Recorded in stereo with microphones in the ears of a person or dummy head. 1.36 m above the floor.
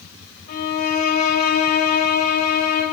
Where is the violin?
50° left (ahead or behind), 2.5 m.